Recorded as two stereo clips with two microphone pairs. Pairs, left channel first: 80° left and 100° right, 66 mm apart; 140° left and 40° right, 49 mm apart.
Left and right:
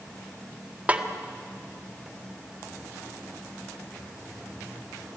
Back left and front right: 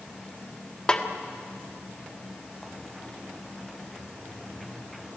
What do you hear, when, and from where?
0.9 s a snare drum: 155° right, 1.5 m